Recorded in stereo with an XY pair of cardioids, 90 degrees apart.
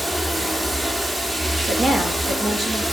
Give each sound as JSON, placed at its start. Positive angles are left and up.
{"t": 0.0, "sound": "running water", "azimuth_deg": -20, "distance_m": 2.5}
{"t": 1.7, "sound": "a woman speaking", "azimuth_deg": -50, "distance_m": 6.0}